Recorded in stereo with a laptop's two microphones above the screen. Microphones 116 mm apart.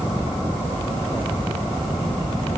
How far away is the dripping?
I don't hear dripping.